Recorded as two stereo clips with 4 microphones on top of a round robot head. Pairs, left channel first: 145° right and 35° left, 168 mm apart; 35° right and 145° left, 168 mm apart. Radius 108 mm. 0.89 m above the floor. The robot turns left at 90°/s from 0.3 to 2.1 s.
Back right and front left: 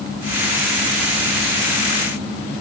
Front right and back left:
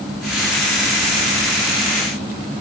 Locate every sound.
Only background noise.